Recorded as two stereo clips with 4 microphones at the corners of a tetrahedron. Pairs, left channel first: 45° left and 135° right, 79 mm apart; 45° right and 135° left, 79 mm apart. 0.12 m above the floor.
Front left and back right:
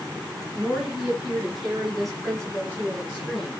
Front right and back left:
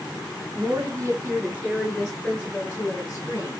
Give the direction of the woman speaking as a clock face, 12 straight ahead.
7 o'clock.